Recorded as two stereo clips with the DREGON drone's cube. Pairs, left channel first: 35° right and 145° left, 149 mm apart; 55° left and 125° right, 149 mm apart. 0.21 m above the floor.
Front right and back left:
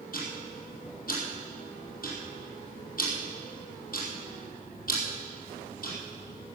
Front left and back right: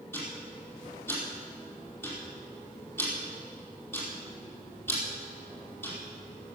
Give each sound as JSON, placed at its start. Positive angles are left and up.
{"t": 0.1, "sound": "ticking", "azimuth_deg": -20, "distance_m": 4.5}